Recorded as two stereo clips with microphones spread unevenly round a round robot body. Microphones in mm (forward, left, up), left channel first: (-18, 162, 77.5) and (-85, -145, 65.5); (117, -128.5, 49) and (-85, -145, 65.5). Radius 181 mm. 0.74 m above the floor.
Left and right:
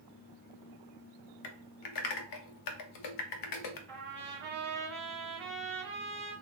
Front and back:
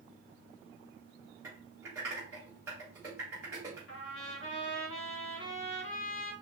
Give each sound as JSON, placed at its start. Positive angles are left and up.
{"t": 1.4, "sound": "typing on a keyboard", "azimuth_deg": 100, "distance_m": 0.6}
{"t": 3.9, "sound": "a trumpet", "azimuth_deg": 0, "distance_m": 0.7}